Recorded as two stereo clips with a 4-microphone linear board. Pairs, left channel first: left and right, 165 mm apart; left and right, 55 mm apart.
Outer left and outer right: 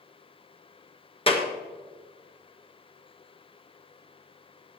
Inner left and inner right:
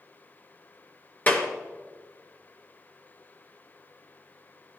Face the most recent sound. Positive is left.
turn(degrees=35)  # may be behind; listen again after turning